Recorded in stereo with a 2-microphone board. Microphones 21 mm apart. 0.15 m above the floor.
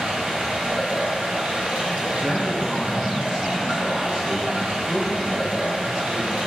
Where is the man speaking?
30° right (ahead or behind), 1.9 m.